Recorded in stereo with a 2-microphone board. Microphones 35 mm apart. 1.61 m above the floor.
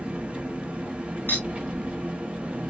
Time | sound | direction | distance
0.0 | an engine running | 35° right (ahead or behind) | 1.1 m
1.3 | a clink | 70° left (ahead or behind) | 2 m